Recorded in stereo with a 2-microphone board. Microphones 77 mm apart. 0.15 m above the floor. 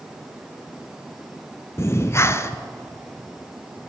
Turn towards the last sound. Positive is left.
turn(degrees=35)  # may be behind; listen again after turning